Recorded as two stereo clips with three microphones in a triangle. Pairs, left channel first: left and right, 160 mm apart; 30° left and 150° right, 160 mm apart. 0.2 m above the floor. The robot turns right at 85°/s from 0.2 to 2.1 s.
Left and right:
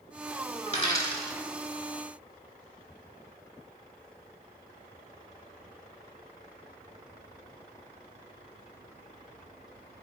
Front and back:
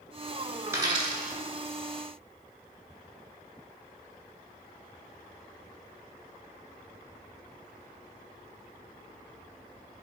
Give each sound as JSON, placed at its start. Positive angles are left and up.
{"t": 0.7, "sound": "a dropped coin", "azimuth_deg": 135, "distance_m": 0.6}